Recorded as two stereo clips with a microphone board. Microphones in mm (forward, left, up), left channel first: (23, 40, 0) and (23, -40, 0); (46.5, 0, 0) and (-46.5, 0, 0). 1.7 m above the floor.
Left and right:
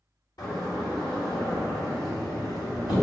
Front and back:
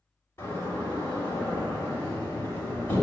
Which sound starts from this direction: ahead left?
A door slam, at 0.4 s.